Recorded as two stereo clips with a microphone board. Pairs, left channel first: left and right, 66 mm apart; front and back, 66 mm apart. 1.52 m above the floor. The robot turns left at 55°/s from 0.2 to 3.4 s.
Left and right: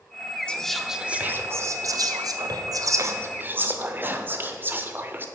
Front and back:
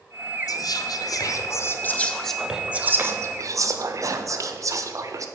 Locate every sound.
0.5 s whispering: 15° left, 0.6 m; by 5.2 s 145° right, 0.6 m